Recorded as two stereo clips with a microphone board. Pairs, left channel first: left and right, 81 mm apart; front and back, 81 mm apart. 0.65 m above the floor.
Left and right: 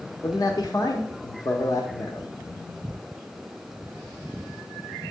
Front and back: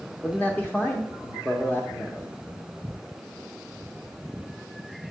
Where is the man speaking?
65° left, 0.8 m.